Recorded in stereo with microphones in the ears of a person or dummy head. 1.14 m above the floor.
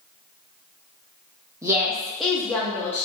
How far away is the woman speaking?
About 0.6 m.